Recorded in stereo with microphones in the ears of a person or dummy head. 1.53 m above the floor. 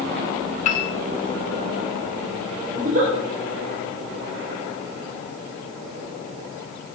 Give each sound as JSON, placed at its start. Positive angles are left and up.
{"t": 0.7, "sound": "a piano", "side_deg": 40, "distance_m": 1.4}
{"t": 2.8, "sound": "a giggle", "side_deg": -45, "distance_m": 3.5}